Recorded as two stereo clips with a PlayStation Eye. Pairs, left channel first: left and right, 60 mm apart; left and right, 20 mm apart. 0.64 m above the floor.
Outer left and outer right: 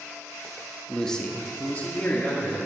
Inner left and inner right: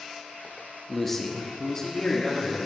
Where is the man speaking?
5° left (ahead or behind), 1.2 m; by 2.6 s 35° left (ahead or behind), 1.9 m.